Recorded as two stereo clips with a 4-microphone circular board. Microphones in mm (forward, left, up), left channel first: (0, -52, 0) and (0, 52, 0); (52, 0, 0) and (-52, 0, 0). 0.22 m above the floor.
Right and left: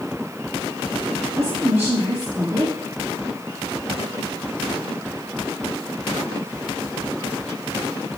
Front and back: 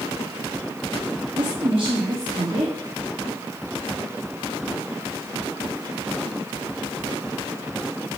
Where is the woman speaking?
155° left, 2.5 m.